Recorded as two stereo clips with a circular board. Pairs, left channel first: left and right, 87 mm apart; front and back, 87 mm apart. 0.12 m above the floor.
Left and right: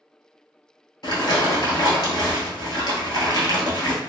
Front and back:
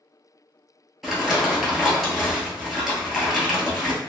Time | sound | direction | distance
1.0 | crumpling | 90° left | 1.0 m